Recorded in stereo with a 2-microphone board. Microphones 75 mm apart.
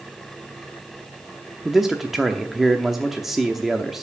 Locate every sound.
1.6 s a man speaking: 5° right (ahead or behind), 0.7 m